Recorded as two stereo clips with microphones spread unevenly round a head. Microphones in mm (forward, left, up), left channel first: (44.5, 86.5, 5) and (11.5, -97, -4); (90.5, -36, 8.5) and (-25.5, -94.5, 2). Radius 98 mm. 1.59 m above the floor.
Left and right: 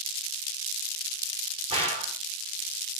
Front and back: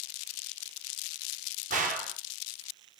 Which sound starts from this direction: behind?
A gunshot, at 1.7 s.